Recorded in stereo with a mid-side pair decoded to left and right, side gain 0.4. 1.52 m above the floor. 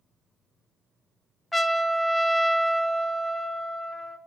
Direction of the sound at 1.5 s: 15° left.